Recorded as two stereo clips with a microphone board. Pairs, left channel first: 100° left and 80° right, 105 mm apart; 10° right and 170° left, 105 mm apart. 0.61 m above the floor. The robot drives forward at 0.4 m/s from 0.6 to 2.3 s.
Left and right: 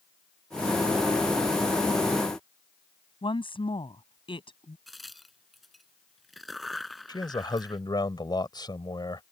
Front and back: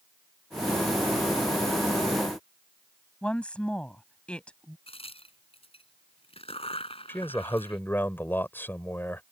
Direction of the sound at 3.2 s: 70° left.